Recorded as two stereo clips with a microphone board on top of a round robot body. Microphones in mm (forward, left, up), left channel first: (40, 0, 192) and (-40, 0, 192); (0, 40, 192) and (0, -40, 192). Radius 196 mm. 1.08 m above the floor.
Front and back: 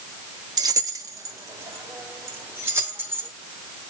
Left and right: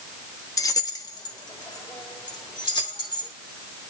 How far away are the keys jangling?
About 1.0 m.